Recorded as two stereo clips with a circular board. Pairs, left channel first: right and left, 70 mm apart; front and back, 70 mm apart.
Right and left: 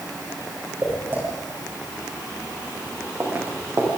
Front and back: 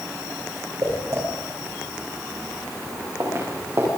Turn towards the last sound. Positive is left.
turn(degrees=140)